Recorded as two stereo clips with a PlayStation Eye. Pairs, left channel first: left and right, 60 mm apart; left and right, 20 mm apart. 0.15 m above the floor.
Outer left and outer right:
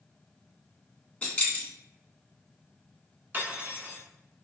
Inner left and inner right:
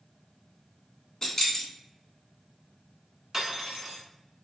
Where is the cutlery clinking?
35° right (ahead or behind), 0.9 m.